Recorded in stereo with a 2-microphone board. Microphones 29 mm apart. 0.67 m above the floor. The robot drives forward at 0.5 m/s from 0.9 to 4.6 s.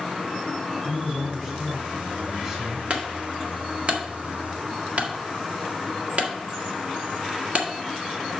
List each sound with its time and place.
0.8 s a man speaking: 25° right (ahead or behind), 3.5 m; by 2.8 s 30° right (ahead or behind), 2.5 m
2.9 s a clunk: 50° right (ahead or behind), 1.6 m